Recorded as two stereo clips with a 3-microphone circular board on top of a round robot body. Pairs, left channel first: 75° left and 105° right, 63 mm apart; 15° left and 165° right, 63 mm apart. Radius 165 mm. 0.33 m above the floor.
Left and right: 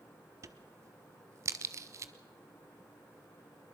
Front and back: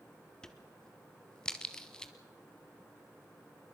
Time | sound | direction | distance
0.4 | a crack | 65° right | 0.5 m